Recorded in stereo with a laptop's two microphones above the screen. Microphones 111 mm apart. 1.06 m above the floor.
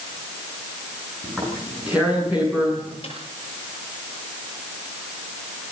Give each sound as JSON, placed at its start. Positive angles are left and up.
{"t": 1.2, "sound": "tearing paper", "side_deg": -10, "distance_m": 8.5}
{"t": 3.0, "sound": "a snare drum", "side_deg": 55, "distance_m": 9.0}